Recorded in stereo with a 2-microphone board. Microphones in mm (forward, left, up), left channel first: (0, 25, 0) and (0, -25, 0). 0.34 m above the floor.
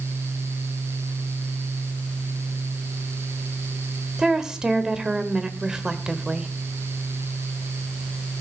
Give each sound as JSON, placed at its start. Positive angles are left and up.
{"t": 4.2, "sound": "a woman speaking", "side_deg": -15, "distance_m": 1.1}